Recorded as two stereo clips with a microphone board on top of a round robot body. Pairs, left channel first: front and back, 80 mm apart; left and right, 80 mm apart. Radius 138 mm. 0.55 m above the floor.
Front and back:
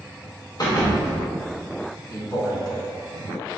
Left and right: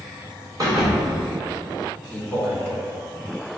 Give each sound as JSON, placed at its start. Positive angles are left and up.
{"t": 0.6, "sound": "a thud", "azimuth_deg": -45, "distance_m": 0.8}
{"t": 2.1, "sound": "a man speaking", "azimuth_deg": 10, "distance_m": 1.4}